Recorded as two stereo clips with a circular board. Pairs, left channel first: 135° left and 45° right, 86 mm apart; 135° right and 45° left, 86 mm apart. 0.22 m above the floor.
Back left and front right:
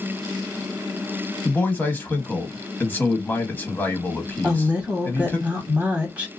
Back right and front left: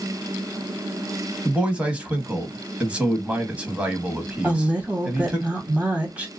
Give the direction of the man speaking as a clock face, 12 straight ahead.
9 o'clock.